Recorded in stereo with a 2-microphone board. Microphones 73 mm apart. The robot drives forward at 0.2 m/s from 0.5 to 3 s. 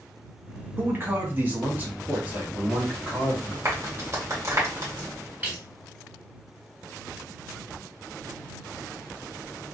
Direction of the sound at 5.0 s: 20° right (ahead or behind).